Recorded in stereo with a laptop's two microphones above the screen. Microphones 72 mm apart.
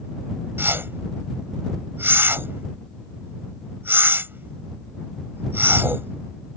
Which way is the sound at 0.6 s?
30° right (ahead or behind).